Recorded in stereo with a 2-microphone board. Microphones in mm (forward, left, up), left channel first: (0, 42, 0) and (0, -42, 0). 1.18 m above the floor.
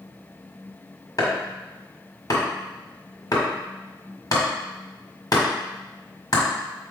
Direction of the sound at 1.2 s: 50° left (ahead or behind).